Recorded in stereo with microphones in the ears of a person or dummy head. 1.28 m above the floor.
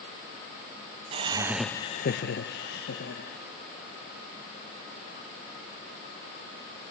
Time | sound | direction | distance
1.1 | laughter | 30° right (ahead or behind) | 0.9 m